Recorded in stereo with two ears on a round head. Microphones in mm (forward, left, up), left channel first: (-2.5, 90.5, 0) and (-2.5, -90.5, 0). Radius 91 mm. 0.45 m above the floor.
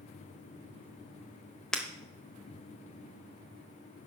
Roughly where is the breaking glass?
Centre.